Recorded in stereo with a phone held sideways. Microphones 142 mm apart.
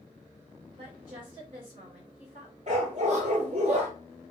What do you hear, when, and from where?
0.8 s a woman speaking: 45° right (ahead or behind), 2.5 m
2.7 s a dog barking: 55° right (ahead or behind), 1.3 m